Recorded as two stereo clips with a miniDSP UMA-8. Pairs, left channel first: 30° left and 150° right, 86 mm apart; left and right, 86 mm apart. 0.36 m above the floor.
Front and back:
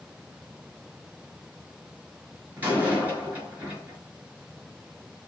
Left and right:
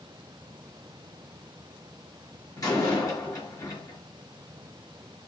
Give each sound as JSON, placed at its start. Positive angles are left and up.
{"t": 2.6, "sound": "a door slam", "azimuth_deg": 140, "distance_m": 4.0}